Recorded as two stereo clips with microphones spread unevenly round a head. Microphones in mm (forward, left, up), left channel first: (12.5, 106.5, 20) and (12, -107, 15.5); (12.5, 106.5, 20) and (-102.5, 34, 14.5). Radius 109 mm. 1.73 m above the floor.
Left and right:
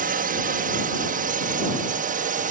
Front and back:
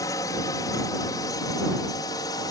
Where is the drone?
40° right.